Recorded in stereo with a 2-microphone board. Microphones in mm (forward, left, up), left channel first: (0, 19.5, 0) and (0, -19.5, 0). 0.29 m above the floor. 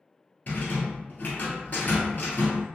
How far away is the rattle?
About 1.3 m.